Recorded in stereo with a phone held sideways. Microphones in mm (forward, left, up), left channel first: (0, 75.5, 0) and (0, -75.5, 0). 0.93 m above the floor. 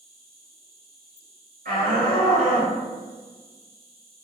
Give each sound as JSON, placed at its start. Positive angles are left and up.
{"t": 0.0, "sound": "an insect", "side_deg": -65, "distance_m": 1.4}
{"t": 1.6, "sound": "a shout", "side_deg": -65, "distance_m": 1.7}